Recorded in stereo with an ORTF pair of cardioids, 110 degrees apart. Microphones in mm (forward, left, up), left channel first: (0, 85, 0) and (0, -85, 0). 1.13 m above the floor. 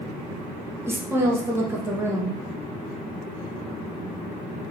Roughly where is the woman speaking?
Ahead.